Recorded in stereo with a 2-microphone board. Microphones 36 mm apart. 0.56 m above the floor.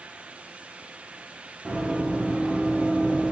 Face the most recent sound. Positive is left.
turn(degrees=-25)  # may be behind; listen again after turning